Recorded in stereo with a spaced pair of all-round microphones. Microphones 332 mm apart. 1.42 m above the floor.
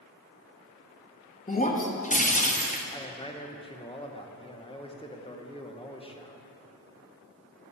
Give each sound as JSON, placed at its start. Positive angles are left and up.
{"t": 1.5, "sound": "breaking glass", "side_deg": 25, "distance_m": 0.8}
{"t": 2.9, "sound": "a man speaking", "side_deg": 15, "distance_m": 0.8}